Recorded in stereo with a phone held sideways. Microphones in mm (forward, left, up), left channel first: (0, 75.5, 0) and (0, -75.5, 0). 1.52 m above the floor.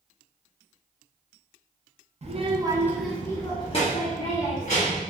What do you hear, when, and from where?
2.2 s a child speaking: 45° right (ahead or behind), 0.6 m; by 5.0 s 65° left (ahead or behind), 1.2 m